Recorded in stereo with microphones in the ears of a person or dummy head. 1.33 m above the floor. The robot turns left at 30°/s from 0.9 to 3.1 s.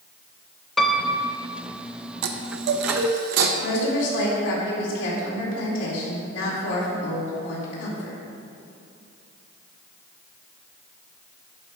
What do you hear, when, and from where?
0.8 s a piano: centre (ahead or behind), 0.6 m; by 1.4 s 15° right (ahead or behind), 0.6 m
2.2 s a chime: 80° right, 0.8 m; by 3.5 s 65° right (ahead or behind), 0.8 m
3.6 s a woman speaking: 85° left, 3 m